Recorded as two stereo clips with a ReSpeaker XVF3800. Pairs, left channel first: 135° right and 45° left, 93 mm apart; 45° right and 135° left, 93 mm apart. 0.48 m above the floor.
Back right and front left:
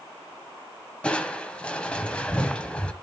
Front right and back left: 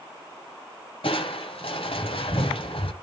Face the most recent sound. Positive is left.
turn(degrees=-55)